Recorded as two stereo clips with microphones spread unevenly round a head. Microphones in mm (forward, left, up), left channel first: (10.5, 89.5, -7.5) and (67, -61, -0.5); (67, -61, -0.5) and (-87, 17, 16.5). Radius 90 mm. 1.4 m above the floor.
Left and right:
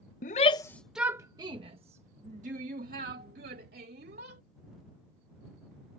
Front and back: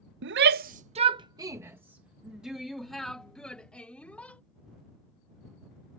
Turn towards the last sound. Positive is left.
turn(degrees=-110)